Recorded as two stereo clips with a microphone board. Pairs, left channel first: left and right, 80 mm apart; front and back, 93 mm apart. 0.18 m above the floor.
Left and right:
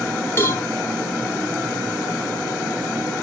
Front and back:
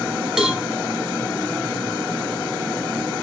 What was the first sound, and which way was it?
A cowbell, 100° left.